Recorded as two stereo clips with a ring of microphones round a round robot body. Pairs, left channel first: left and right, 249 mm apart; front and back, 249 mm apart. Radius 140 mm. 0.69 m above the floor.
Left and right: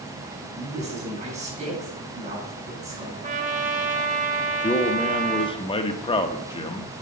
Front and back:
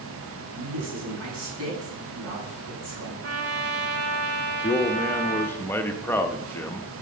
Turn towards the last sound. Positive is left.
turn(degrees=65)